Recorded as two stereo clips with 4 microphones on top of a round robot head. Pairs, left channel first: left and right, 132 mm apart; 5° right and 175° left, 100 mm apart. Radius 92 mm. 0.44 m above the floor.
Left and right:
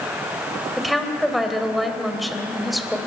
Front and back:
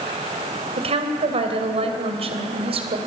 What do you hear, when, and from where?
0.8 s a woman speaking: straight behind, 2.5 m